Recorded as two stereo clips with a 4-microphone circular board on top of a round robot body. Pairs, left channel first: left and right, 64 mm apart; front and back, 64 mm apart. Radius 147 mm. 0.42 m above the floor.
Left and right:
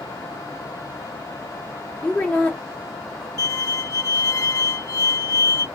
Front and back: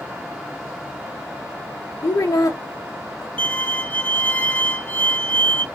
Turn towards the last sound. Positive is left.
turn(degrees=60)